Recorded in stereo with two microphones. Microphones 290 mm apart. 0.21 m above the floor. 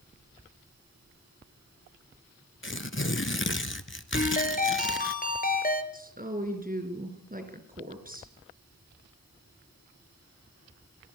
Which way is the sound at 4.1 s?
30° left (ahead or behind).